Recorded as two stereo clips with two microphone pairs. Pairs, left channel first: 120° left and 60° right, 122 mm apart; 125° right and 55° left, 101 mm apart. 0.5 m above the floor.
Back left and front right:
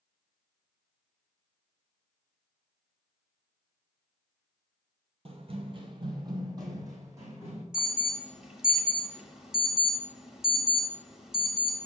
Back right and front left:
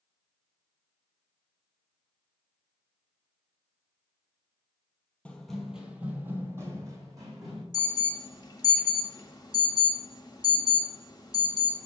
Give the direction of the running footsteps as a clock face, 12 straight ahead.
2 o'clock.